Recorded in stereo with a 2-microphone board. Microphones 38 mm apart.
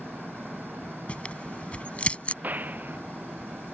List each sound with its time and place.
0.0 s an engine running: 70° right (ahead or behind)
1.1 s tearing paper: 30° left (ahead or behind)
2.4 s a gunshot: 45° right (ahead or behind)